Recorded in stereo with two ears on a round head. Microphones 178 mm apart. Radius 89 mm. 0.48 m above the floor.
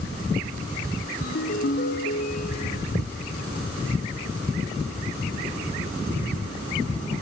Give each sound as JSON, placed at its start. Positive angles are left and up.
{"t": 1.2, "sound": "a ringtone", "side_deg": 50, "distance_m": 1.9}